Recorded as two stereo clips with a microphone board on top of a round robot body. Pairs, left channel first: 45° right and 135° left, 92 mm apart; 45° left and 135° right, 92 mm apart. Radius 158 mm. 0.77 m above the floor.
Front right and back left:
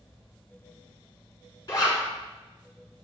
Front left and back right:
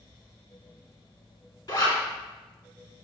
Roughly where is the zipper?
Ahead.